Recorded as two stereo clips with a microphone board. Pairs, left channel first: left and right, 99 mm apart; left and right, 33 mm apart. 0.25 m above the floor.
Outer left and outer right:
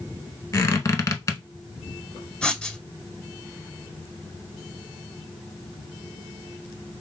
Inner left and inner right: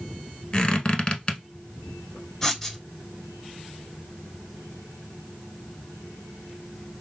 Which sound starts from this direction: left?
A squeak, at 0.5 s.